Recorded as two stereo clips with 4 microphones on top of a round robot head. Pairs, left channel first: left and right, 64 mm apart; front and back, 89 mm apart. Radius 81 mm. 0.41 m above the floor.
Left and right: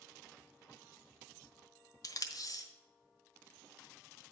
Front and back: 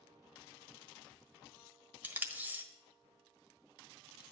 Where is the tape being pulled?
110° left, 1.4 m.